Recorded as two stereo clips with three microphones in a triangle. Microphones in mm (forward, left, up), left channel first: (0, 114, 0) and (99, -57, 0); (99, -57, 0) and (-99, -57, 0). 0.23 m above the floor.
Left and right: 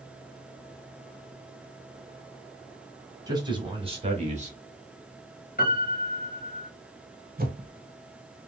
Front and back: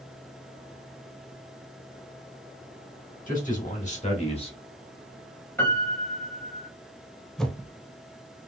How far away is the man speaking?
About 1.6 m.